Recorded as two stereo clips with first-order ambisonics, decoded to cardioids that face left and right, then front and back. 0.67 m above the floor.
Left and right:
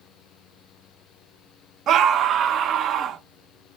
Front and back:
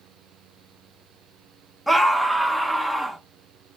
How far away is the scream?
About 0.7 m.